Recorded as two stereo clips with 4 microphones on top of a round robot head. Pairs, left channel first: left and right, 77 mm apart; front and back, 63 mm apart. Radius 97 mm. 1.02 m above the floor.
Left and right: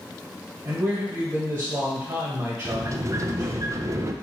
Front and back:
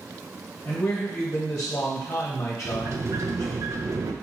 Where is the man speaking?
50° right, 1.4 m.